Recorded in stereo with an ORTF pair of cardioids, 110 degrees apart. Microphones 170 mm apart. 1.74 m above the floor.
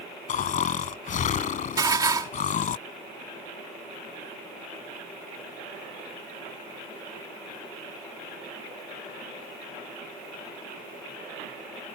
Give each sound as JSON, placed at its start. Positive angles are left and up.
{"t": 0.3, "sound": "snoring", "azimuth_deg": 50}
{"t": 1.8, "sound": "dishes clattering", "azimuth_deg": -25}